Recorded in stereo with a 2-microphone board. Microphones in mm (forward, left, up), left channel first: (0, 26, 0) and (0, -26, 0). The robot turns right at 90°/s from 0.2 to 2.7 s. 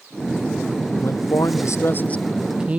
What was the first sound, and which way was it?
A man speaking, 50° left.